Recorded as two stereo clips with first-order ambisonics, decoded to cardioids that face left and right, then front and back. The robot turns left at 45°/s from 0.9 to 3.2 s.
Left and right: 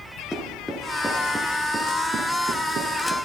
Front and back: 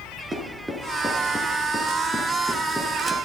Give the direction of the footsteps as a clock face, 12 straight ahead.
7 o'clock.